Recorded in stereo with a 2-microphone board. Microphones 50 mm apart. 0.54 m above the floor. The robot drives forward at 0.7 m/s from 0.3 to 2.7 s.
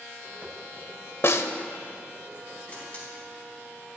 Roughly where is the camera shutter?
Left.